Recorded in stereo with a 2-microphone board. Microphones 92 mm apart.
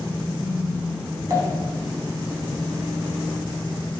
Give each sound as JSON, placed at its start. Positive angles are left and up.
{"t": 1.3, "sound": "a pop", "side_deg": -40, "distance_m": 1.5}